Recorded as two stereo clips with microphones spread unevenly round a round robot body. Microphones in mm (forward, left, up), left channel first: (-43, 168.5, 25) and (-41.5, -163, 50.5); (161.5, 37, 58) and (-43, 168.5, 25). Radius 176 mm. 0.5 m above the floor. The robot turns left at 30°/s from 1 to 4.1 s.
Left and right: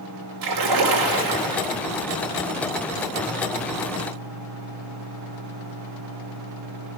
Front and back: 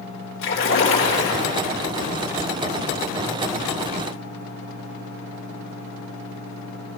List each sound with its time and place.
0.4 s a splash: 80° right, 1.6 m; by 1.8 s 105° right, 1.6 m